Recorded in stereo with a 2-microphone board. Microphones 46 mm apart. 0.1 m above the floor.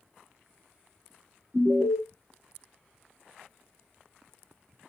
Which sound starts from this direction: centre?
An alarm, at 1.5 s.